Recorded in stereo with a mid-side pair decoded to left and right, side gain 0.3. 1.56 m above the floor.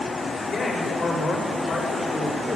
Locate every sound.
0.5 s a man speaking: 60° left, 8 m; by 2.6 s 55° left, 6.5 m